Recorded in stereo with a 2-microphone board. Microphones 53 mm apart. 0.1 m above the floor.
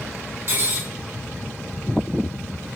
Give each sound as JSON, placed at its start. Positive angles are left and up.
{"t": 0.5, "sound": "cutlery clinking", "side_deg": -45, "distance_m": 1.2}